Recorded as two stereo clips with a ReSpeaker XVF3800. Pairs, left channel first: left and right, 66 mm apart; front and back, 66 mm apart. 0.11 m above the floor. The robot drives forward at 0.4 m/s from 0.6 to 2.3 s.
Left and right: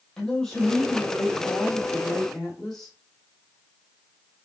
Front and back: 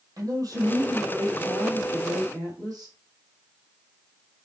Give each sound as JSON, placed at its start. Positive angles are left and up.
{"t": 0.2, "sound": "a man speaking", "azimuth_deg": 165, "distance_m": 3.0}